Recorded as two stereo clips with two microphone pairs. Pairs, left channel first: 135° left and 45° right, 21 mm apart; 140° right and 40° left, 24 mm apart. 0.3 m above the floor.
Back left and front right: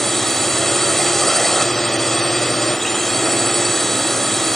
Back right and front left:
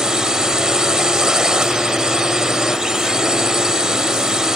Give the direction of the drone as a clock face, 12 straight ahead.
10 o'clock.